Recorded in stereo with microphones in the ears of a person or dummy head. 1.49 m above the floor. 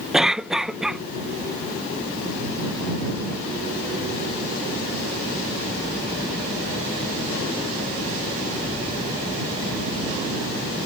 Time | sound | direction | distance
0.1 | a cough | 5° right (ahead or behind) | ?